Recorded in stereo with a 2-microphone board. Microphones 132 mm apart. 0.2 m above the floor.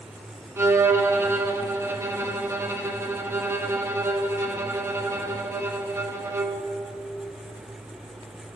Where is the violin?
20° right (ahead or behind), 2.5 m.